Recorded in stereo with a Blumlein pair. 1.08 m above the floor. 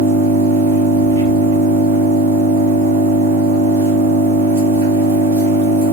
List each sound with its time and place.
0.0 s an engine running: 65° right, 1.0 m